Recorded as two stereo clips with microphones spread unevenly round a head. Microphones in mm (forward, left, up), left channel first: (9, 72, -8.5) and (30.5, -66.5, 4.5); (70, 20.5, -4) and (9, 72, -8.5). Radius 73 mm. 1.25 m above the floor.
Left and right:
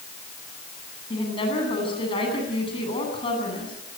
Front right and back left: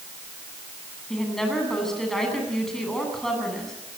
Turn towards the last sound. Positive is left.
turn(degrees=45)